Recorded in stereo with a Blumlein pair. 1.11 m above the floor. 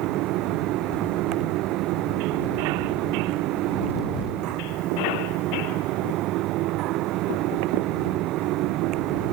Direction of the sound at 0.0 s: 40° right.